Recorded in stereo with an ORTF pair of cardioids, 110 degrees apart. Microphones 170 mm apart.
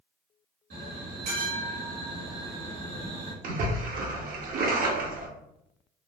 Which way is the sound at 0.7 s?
70° right.